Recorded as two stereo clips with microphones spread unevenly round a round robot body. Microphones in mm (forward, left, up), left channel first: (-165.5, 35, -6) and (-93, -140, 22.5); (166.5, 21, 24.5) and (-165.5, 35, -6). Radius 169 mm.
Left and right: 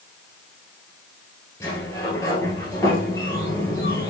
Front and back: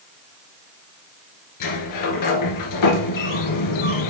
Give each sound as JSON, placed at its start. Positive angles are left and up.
{"t": 1.6, "sound": "a sliding door", "azimuth_deg": 30, "distance_m": 1.9}